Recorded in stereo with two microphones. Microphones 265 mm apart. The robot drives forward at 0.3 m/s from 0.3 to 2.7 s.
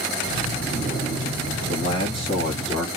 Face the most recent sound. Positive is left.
turn(degrees=20)  # may be behind; listen again after turning